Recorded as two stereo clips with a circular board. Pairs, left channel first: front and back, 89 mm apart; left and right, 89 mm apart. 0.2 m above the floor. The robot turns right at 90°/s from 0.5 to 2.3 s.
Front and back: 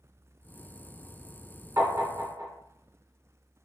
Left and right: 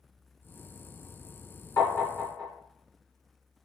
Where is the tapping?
125° left, 2.0 m; by 2.5 s 170° left, 2.0 m.